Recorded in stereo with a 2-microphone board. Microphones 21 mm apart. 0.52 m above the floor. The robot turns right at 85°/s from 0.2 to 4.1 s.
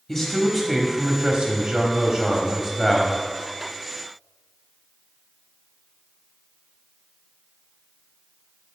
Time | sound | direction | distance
0.1 | a man speaking | 155° left | 1.0 m